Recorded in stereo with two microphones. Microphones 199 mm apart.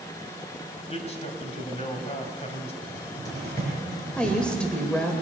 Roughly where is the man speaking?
Left.